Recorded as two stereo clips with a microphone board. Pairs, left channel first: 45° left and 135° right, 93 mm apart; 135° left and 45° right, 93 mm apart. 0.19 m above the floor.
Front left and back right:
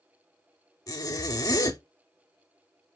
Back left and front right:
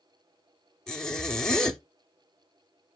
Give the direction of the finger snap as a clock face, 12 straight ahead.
I don't hear a finger snap.